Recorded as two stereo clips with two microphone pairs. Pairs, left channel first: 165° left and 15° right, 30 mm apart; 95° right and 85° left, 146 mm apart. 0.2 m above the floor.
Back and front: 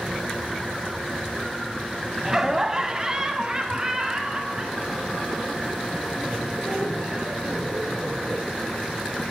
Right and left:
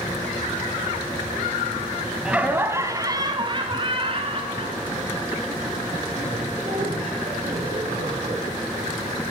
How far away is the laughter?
About 1.0 m.